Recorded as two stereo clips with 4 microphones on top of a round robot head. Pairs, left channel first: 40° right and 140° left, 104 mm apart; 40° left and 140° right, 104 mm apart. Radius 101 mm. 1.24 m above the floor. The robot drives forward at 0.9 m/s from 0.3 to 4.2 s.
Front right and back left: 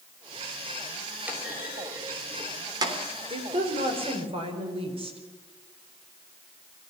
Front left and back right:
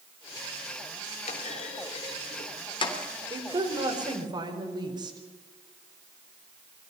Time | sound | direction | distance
1.3 | a clunk | 60° left | 3.5 m
3.3 | a woman speaking | 170° left | 4 m